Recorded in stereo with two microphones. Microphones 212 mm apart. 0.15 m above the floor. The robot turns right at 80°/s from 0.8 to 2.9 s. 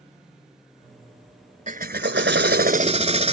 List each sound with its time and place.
1.7 s a drill: 135° right; by 3.3 s 40° right